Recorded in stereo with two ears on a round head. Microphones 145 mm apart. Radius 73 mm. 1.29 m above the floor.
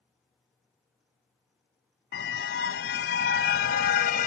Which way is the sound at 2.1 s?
75° left (ahead or behind).